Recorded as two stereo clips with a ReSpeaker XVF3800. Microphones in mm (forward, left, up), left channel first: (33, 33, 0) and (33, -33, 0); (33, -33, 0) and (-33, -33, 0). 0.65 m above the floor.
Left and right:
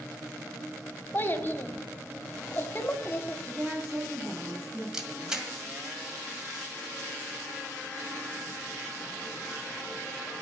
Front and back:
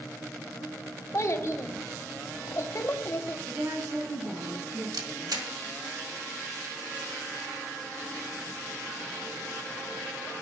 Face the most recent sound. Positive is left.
turn(degrees=-170)